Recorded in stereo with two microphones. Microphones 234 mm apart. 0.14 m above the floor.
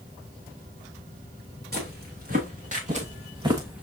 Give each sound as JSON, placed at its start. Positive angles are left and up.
{"t": 1.7, "sound": "footsteps", "side_deg": -40, "distance_m": 2.5}